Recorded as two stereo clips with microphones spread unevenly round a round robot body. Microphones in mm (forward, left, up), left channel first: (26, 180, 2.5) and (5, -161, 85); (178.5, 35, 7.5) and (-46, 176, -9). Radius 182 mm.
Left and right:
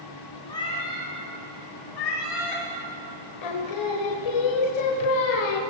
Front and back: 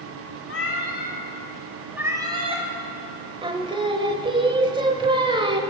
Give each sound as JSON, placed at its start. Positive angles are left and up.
{"t": 0.5, "sound": "a cat meowing", "azimuth_deg": 0, "distance_m": 1.8}
{"t": 3.4, "sound": "singing", "azimuth_deg": 75, "distance_m": 1.0}